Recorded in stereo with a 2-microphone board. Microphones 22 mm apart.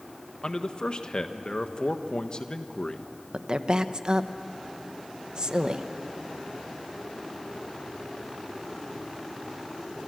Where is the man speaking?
40° left (ahead or behind), 1.3 m.